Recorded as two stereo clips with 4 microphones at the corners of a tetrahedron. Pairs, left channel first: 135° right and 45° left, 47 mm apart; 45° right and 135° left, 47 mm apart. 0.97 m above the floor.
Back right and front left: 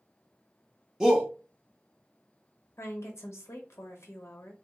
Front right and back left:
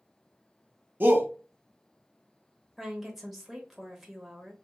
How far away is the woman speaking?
About 1.0 m.